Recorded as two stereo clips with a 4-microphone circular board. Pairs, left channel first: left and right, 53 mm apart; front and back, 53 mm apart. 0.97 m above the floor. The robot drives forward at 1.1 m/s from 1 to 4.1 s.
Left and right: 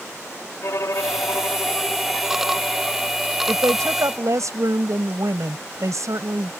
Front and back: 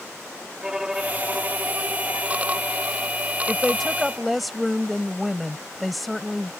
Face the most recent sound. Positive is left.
turn(degrees=-90)